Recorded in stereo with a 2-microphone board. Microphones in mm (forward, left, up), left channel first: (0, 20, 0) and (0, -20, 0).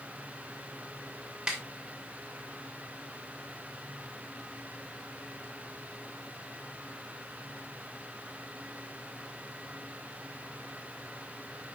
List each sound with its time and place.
1.5 s a snare drum: 10° right (ahead or behind), 2.5 m